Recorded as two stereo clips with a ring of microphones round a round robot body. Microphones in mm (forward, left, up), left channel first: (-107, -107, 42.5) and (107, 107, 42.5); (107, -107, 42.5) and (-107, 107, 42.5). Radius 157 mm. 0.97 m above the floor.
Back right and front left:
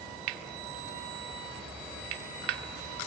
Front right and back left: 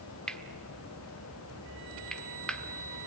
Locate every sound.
0.3 s cutlery clinking: 45° left, 1.3 m